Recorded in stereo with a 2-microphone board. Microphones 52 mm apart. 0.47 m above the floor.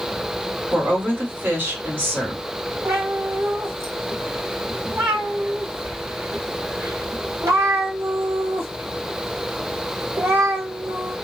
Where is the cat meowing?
65° right (ahead or behind), 0.9 m.